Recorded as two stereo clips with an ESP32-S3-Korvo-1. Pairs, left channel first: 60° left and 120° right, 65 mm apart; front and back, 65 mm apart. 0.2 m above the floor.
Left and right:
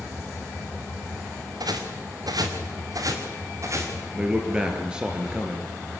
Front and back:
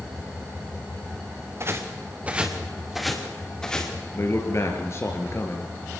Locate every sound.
1.6 s footsteps: 135° right, 2.5 m; by 3.9 s 80° right, 4.5 m
4.1 s a man speaking: 45° right, 3.5 m